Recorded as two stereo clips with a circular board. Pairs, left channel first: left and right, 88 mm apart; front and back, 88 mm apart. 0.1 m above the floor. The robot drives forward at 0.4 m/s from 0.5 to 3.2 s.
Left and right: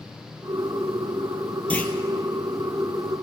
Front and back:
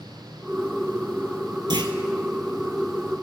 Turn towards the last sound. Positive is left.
turn(degrees=170)